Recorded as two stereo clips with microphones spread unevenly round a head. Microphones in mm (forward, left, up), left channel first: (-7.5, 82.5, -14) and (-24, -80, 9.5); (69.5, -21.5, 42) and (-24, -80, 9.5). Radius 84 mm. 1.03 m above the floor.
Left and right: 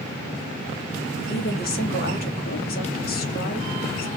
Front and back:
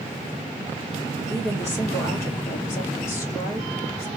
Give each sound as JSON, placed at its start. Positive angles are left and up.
{"t": 1.3, "sound": "a woman speaking", "azimuth_deg": 110, "distance_m": 1.6}